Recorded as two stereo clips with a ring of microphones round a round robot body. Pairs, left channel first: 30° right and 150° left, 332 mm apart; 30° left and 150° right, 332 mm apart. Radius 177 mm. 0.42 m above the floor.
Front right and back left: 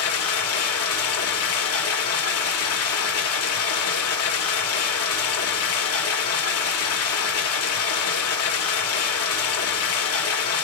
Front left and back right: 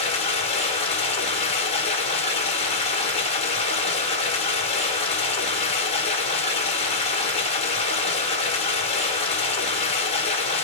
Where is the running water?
35° right, 1.1 m.